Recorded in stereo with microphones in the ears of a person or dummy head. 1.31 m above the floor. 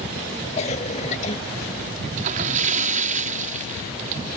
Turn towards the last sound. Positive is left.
turn(degrees=-45)  # may be behind; listen again after turning